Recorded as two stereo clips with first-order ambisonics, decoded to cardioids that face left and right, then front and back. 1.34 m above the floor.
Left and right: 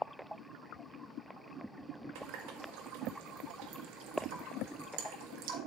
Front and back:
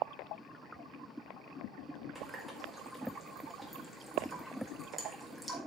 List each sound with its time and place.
2.1 s a running tap: 90° right, 1.6 m